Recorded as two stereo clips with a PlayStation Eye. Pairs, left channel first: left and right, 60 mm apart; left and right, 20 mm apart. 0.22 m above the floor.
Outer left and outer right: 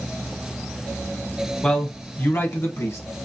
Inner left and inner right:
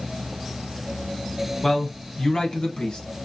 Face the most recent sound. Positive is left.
turn(degrees=55)  # may be behind; listen again after turning